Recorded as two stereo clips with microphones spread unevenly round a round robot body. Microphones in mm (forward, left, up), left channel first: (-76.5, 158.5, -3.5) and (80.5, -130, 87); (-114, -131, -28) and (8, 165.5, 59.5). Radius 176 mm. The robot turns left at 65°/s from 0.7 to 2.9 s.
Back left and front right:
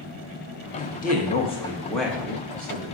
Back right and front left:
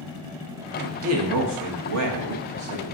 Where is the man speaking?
130° left, 0.8 m; by 2.9 s 10° right, 0.8 m.